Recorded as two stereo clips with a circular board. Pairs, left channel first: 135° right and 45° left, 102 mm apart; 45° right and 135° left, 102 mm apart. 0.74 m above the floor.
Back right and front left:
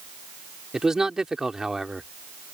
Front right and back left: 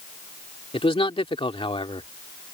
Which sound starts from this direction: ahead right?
A man speaking, at 0.7 s.